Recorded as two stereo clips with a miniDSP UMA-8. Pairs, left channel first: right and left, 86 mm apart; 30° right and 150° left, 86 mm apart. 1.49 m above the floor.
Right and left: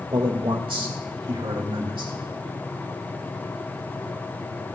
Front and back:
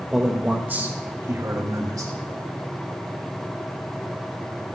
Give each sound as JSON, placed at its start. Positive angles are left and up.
{"t": 0.1, "sound": "a man speaking", "azimuth_deg": 65, "distance_m": 1.8}